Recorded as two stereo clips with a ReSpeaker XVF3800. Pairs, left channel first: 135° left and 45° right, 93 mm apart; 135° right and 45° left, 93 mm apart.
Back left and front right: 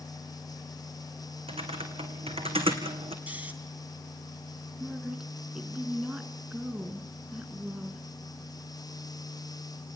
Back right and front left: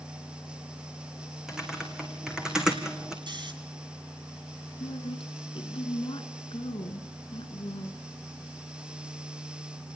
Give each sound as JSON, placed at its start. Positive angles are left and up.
{"t": 1.5, "sound": "typing on a keyboard", "azimuth_deg": -40, "distance_m": 2.5}
{"t": 3.3, "sound": "snoring", "azimuth_deg": 25, "distance_m": 2.5}
{"t": 4.8, "sound": "a woman speaking", "azimuth_deg": -125, "distance_m": 3.0}